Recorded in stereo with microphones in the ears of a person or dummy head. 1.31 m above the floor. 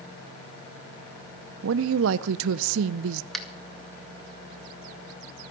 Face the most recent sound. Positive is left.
turn(degrees=0)  # may be behind; listen again after turning